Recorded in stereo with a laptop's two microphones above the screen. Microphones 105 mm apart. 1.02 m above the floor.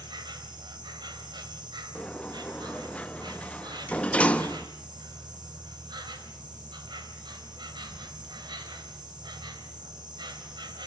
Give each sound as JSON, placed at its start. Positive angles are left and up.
{"t": 0.0, "sound": "an insect", "side_deg": -45, "distance_m": 3.0}
{"t": 1.9, "sound": "a sliding door", "side_deg": 15, "distance_m": 1.0}